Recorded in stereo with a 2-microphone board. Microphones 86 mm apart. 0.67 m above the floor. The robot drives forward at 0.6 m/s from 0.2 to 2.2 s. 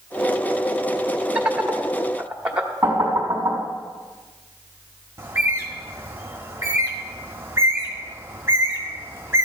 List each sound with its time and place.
1.4 s laughter: 15° right (ahead or behind), 1.2 m; by 2.7 s 10° right (ahead or behind), 1.6 m
2.8 s knocking: 25° right (ahead or behind), 3.5 m
5.2 s a bird: 30° right (ahead or behind), 1.3 m